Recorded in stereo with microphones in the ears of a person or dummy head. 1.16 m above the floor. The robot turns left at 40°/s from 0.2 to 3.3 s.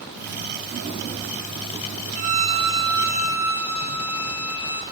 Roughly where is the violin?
Behind right.